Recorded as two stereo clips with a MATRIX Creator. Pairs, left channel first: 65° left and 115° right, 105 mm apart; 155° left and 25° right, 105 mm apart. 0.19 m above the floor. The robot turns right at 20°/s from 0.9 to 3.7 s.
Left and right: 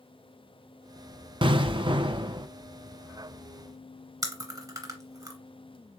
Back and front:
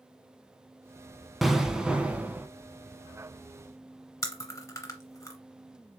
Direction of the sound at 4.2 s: 155° right.